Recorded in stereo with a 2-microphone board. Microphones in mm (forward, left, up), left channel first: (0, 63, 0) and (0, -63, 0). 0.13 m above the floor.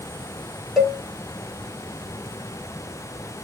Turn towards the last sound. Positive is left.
turn(degrees=0)  # may be behind; listen again after turning